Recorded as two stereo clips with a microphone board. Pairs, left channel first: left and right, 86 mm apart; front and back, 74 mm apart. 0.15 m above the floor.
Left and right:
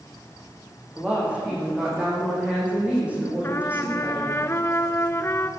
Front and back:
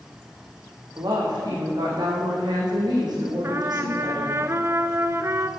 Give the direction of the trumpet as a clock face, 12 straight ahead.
7 o'clock.